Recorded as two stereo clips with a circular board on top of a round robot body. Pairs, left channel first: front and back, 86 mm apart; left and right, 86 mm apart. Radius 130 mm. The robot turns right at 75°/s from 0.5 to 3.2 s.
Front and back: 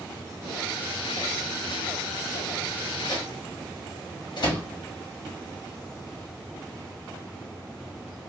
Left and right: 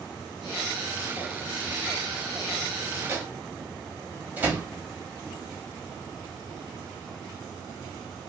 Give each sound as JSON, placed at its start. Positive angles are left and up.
{"t": 3.1, "sound": "a microwave", "azimuth_deg": -30, "distance_m": 1.3}